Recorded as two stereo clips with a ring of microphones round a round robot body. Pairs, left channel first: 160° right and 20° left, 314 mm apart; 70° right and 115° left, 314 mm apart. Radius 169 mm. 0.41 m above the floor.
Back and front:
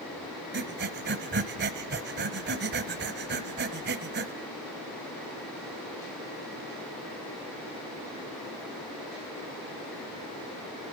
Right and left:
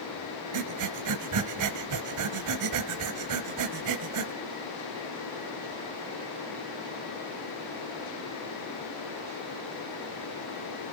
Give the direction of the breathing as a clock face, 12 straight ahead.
9 o'clock.